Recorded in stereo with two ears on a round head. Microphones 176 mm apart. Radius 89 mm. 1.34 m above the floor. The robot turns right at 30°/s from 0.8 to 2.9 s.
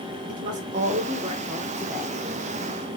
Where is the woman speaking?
40° right, 0.8 m; by 2.2 s straight ahead, 0.8 m.